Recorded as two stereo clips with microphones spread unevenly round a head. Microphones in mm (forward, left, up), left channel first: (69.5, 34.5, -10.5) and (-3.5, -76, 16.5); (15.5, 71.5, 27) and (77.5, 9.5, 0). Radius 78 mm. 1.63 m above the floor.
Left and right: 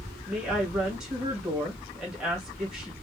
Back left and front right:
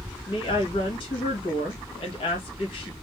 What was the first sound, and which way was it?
A woman speaking, 155° left.